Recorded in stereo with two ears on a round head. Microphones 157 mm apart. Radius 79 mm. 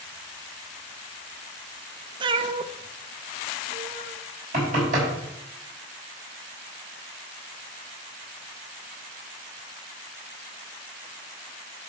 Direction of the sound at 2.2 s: 25° right (ahead or behind).